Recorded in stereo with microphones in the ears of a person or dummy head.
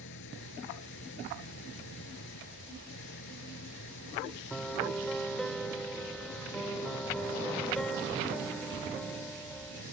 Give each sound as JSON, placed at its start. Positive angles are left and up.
{"t": 0.0, "sound": "an engine running", "side_deg": 60}
{"t": 4.5, "sound": "a piano", "side_deg": 5}